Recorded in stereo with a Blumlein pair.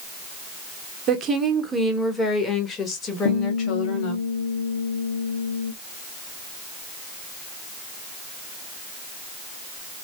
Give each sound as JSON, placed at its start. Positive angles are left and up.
{"t": 1.1, "sound": "a woman speaking", "azimuth_deg": -30, "distance_m": 0.8}
{"t": 3.2, "sound": "a guitar", "azimuth_deg": 60, "distance_m": 1.2}